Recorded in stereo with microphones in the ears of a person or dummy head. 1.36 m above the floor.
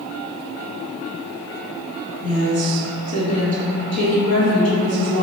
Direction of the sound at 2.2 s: 45° left (ahead or behind).